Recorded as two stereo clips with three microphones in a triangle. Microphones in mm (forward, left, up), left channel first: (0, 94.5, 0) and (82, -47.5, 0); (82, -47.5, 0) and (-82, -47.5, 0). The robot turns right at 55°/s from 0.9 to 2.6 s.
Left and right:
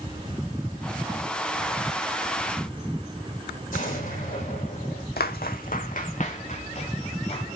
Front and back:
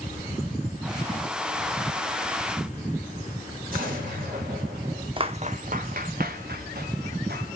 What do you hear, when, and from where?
3.7 s an explosion: 150° left, 6.5 m
5.2 s footsteps: 125° left, 0.7 m; by 7.5 s 170° left, 2 m